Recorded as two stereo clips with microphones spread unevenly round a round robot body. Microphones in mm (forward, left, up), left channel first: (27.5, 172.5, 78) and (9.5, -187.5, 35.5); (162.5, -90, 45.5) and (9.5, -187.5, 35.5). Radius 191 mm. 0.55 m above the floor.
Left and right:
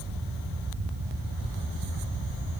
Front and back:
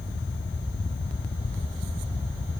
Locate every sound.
Only background noise.